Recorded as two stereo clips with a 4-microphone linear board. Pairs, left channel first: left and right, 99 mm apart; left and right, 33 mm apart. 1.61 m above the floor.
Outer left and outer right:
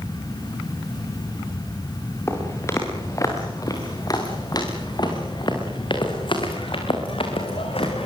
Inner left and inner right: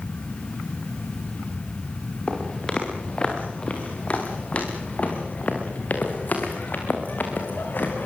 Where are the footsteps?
25° left (ahead or behind), 7 m; by 8.1 s 70° left (ahead or behind), 6 m.